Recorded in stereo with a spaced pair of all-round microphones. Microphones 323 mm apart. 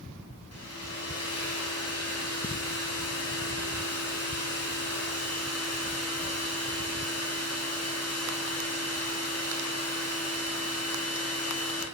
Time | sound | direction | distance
0.5 | a hair dryer | 50° left (ahead or behind) | 1.1 m